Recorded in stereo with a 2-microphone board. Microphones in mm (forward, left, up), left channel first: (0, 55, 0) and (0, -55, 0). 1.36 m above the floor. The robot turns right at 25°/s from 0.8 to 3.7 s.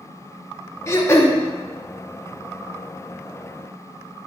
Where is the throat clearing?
25° left (ahead or behind), 0.9 m; by 1.4 s 20° left (ahead or behind), 0.9 m.